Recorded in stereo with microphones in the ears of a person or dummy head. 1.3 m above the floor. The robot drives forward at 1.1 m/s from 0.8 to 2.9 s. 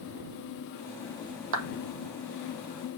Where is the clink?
No clink in this recording.